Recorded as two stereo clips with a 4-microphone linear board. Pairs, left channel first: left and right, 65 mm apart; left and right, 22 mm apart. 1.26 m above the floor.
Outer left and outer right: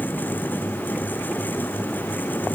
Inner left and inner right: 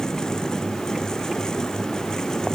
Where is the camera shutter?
No camera shutter in this recording.